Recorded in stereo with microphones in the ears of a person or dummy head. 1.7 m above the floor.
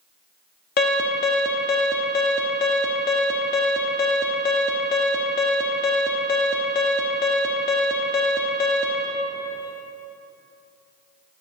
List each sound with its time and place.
0.8 s an alarm: 45° left (ahead or behind), 1.0 m